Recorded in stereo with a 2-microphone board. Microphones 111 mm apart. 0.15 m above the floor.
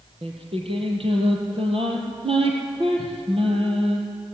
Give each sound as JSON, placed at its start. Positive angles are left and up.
{"t": 0.2, "sound": "singing", "side_deg": -60, "distance_m": 4.5}